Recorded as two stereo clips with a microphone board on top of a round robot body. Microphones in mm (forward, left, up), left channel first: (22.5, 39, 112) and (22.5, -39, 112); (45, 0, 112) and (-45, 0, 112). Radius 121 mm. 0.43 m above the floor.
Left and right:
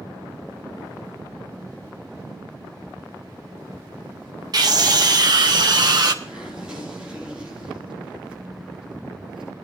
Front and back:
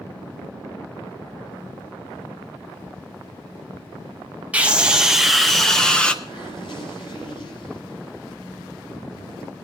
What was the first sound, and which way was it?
A scream, 110° right.